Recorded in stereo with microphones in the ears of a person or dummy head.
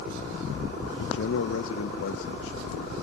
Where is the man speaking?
75° left (ahead or behind), 1.2 m.